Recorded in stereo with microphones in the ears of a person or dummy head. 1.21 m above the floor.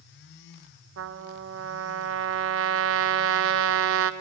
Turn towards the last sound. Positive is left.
turn(degrees=-70)  # may be behind; listen again after turning